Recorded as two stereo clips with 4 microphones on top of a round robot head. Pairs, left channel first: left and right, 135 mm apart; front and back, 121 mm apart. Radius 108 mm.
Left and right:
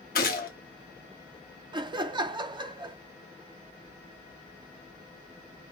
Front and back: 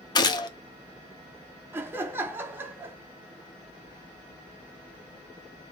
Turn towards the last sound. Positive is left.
turn(degrees=-120)